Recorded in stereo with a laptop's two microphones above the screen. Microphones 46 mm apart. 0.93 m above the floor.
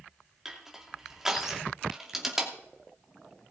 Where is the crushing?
10° right (ahead or behind), 2.5 m.